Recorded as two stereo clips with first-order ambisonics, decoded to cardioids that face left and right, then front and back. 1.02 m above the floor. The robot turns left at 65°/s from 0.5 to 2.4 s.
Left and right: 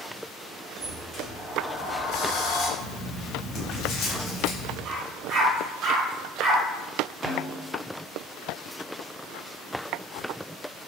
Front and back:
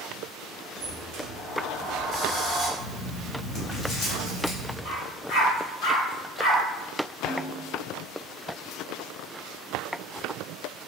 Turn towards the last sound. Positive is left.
turn(degrees=-35)